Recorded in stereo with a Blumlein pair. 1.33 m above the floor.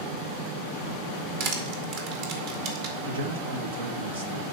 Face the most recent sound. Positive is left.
turn(degrees=-70)